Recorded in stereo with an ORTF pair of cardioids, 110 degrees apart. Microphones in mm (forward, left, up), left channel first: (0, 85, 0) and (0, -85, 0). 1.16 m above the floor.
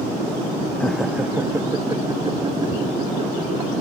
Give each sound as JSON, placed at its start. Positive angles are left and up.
{"t": 0.8, "sound": "laughter", "azimuth_deg": 10}